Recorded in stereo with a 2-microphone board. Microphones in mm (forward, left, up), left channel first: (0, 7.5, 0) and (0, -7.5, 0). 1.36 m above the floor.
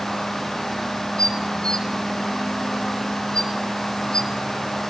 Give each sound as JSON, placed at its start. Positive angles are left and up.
{"t": 1.2, "sound": "dishes clattering", "side_deg": 65, "distance_m": 2.5}